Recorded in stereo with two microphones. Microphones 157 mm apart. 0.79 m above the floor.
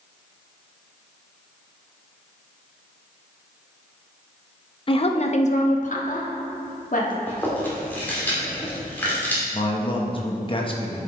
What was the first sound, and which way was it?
A woman speaking, 35° left (ahead or behind).